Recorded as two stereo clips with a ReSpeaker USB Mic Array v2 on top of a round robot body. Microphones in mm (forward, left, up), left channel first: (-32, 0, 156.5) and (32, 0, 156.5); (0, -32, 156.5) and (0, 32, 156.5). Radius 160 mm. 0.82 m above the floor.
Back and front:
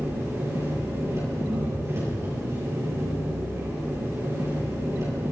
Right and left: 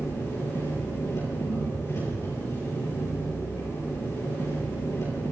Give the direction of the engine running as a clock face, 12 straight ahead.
2 o'clock.